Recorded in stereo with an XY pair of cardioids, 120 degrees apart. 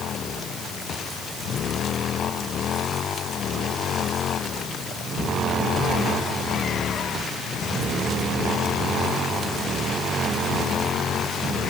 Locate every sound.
Only background noise.